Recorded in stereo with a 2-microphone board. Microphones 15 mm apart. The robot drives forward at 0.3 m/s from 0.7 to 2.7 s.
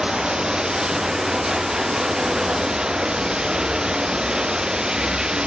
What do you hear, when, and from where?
0.0 s running water: 70° right (ahead or behind); by 5.5 s 65° right (ahead or behind)